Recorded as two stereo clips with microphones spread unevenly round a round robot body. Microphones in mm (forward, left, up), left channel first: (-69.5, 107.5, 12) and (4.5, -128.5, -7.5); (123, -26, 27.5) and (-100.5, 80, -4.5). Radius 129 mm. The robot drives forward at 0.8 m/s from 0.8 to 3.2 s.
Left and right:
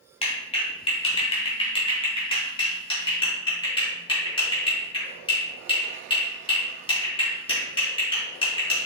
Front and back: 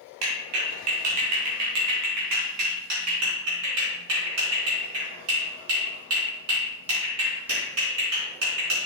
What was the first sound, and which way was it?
A clap, 175° left.